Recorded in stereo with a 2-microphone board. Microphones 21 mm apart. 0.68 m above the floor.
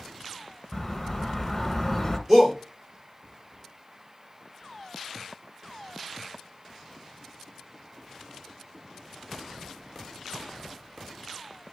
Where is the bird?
10° left (ahead or behind), 1.3 m.